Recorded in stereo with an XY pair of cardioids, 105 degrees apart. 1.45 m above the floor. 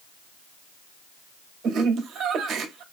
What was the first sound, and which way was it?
Laughter, 70° right.